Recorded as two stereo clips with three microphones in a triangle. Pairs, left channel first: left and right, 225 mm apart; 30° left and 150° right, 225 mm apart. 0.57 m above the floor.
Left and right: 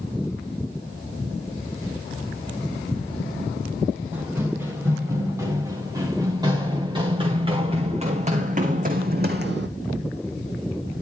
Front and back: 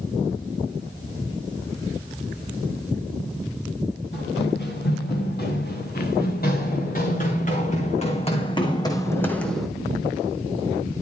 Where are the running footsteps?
10° right, 4.5 m; by 9.7 s 60° right, 1.4 m.